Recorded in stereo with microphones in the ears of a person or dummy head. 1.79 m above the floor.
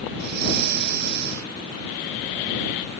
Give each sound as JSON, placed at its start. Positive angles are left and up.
{"t": 0.1, "sound": "breathing", "side_deg": -55}